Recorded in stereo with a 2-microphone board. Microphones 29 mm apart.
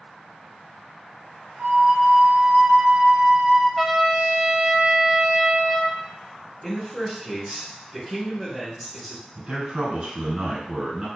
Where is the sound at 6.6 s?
Centre (ahead or behind), 1.4 m.